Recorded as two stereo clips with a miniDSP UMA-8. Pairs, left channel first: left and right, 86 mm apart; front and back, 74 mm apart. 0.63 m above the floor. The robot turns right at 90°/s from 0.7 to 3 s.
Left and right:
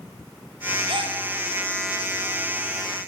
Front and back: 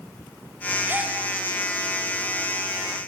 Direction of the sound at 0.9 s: 115° right.